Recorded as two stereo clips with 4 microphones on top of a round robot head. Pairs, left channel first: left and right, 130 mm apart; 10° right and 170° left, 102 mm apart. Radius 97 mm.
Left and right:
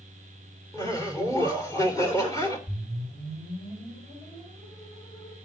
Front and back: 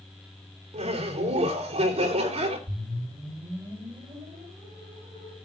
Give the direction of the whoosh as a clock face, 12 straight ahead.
7 o'clock.